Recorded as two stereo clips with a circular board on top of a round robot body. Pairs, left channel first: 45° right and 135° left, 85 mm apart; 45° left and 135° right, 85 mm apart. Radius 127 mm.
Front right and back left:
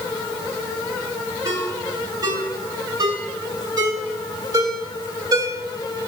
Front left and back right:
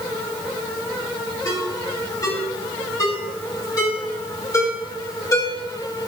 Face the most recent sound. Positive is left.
turn(degrees=95)